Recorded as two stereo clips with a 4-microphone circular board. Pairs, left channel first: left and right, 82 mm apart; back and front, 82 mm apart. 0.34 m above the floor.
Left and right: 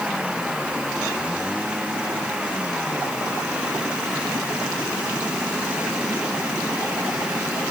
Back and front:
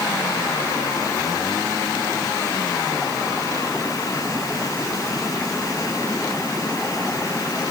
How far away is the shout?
No shout in this recording.